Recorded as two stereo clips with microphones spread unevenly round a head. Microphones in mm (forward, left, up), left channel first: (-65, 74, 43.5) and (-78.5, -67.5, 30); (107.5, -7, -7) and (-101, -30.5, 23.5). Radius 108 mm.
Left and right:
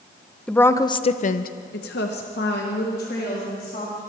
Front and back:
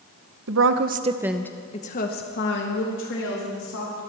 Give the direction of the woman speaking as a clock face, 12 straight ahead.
6 o'clock.